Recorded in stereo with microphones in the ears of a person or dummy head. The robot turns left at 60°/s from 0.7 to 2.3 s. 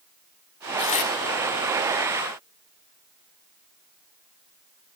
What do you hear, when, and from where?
0.8 s tearing paper: 25° left (ahead or behind), 1.9 m; by 1.1 s 45° left (ahead or behind), 1.9 m